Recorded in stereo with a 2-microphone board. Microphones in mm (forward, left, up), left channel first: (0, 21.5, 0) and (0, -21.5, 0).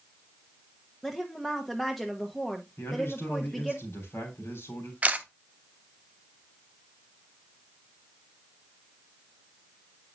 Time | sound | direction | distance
1.0 | a woman speaking | centre (ahead or behind) | 0.8 m
2.8 | a man speaking | 80° left | 3 m
5.0 | a camera shutter | 35° right (ahead or behind) | 0.7 m